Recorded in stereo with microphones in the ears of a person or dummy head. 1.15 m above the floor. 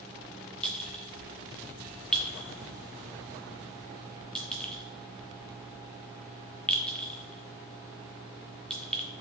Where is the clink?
5° left (ahead or behind), 0.6 m.